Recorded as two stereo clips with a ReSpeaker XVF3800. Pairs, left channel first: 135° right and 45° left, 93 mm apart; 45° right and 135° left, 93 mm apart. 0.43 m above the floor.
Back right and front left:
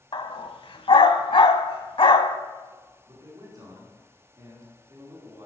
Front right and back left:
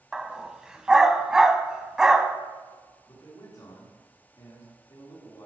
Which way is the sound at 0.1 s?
145° right.